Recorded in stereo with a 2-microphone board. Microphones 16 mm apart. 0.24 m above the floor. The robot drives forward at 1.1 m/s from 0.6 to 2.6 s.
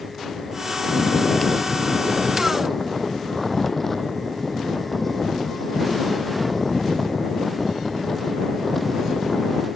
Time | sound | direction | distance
0.9 | snoring | 20° left (ahead or behind) | ?